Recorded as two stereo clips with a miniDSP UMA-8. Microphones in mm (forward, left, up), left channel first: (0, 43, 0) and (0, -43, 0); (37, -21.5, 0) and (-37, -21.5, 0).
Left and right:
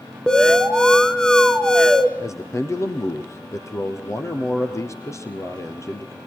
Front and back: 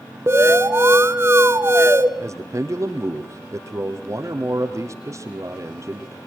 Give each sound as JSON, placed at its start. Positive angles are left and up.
{"t": 0.3, "sound": "an alarm", "azimuth_deg": 165, "distance_m": 0.9}
{"t": 2.2, "sound": "a man speaking", "azimuth_deg": 140, "distance_m": 2.5}